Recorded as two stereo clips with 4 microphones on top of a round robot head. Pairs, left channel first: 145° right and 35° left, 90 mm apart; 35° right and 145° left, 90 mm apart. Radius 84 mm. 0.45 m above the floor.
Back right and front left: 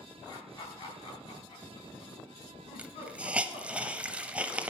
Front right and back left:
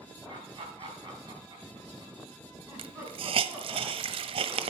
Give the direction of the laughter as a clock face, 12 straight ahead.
6 o'clock.